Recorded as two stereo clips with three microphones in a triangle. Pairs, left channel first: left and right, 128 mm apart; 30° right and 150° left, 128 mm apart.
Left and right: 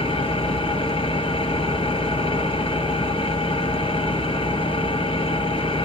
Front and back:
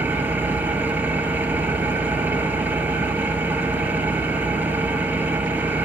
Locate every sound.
0.0 s an engine running: 80° left, 1.3 m